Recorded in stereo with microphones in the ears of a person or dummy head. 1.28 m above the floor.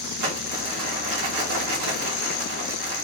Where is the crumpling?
70° right (ahead or behind), 1.4 m.